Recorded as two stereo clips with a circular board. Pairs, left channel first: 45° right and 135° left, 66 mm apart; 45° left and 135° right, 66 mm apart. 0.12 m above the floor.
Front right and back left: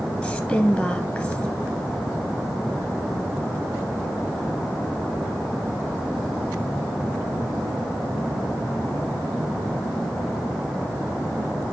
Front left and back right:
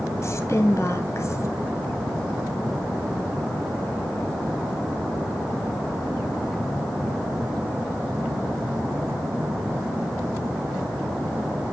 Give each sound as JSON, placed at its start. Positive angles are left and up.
{"t": 0.2, "sound": "a woman speaking", "azimuth_deg": 25, "distance_m": 2.0}